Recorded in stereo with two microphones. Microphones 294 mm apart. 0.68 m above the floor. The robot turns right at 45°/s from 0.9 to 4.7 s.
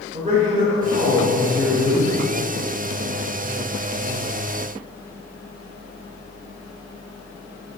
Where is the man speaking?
30° right, 2.5 m; by 2.1 s 25° left, 2.5 m.